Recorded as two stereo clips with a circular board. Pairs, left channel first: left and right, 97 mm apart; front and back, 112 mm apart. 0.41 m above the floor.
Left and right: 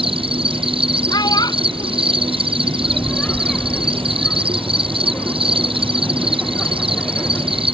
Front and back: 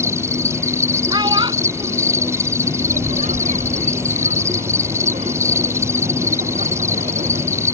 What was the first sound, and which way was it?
An insect, 115° right.